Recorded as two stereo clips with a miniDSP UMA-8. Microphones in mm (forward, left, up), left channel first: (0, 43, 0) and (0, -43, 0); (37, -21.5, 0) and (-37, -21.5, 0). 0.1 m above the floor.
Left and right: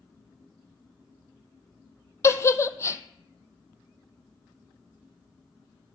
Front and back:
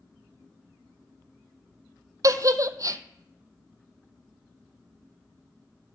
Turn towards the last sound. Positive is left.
turn(degrees=145)